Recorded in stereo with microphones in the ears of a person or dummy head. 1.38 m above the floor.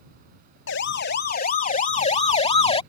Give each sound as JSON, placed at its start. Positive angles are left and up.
{"t": 0.7, "sound": "a siren", "side_deg": 65}